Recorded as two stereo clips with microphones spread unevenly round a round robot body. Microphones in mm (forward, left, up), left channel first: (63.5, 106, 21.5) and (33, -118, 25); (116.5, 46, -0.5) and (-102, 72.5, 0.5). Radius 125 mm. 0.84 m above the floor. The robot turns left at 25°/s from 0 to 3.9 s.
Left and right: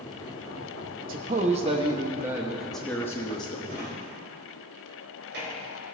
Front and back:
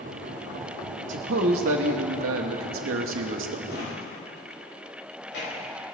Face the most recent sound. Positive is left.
turn(degrees=-55)